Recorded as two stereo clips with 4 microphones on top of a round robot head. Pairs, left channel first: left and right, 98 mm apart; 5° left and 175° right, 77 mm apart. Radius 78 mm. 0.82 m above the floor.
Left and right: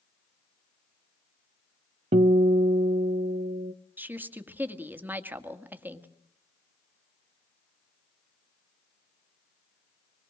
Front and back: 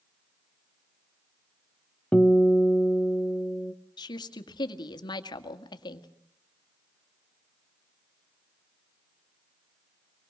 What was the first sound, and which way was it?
A guitar, 80° right.